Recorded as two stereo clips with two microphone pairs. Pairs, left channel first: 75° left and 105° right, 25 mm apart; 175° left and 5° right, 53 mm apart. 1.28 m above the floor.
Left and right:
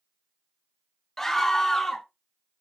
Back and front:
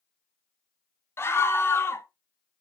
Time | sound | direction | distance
1.2 | a scream | 145° left | 1.2 m